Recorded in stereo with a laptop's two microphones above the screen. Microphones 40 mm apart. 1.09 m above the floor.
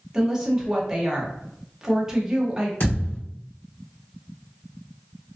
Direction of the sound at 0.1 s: 15° right (ahead or behind).